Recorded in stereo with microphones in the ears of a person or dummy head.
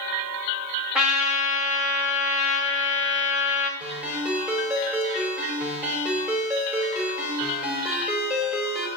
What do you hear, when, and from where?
0.9 s a trumpet: centre (ahead or behind), 1.3 m
3.8 s a ringtone: 5° right (ahead or behind), 2.5 m